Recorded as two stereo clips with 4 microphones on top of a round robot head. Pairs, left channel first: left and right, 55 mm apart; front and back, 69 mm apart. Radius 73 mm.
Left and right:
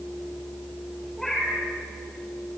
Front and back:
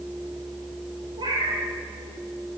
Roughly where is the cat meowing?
Behind.